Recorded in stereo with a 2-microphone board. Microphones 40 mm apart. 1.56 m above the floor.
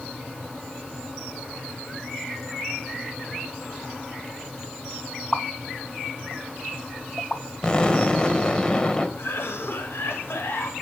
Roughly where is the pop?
Left.